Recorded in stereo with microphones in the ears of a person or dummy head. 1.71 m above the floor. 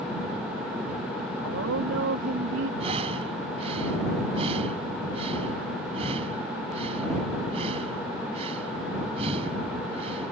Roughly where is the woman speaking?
Right.